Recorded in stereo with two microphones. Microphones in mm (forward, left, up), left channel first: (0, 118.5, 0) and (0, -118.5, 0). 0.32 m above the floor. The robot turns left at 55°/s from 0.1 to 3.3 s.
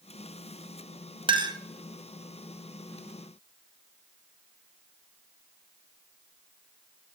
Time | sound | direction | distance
1.3 | a clink | 20° right (ahead or behind) | 0.7 m